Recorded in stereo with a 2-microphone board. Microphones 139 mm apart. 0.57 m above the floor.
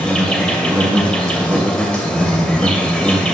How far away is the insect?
About 2 m.